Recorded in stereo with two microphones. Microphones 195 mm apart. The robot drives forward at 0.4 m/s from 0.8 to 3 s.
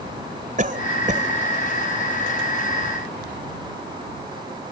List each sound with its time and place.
0.6 s a cough: 45° right (ahead or behind)